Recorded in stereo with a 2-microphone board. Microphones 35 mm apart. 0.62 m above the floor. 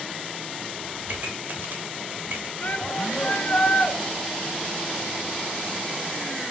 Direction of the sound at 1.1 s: 55° right (ahead or behind).